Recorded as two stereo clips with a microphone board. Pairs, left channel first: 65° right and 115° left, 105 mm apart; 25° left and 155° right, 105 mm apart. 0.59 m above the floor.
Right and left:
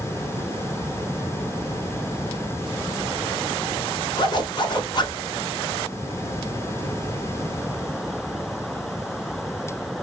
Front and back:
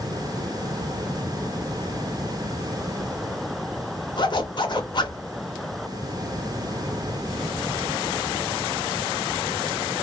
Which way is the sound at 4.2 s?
20° right.